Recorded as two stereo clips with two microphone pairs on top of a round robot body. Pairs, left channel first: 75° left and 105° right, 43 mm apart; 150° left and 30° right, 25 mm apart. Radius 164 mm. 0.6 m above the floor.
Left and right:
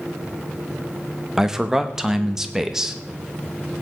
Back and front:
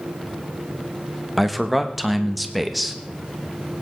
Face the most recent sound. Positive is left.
turn(degrees=-100)